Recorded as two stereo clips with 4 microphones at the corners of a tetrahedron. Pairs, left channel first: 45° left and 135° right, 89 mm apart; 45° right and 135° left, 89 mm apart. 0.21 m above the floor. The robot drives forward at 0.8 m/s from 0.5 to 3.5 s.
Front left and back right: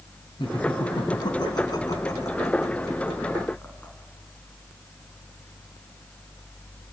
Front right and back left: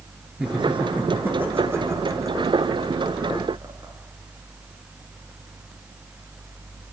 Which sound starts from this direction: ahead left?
Laughter, at 0.4 s.